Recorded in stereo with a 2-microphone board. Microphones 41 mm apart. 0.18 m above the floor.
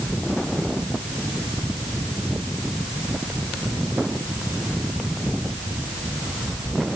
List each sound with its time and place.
Only background noise.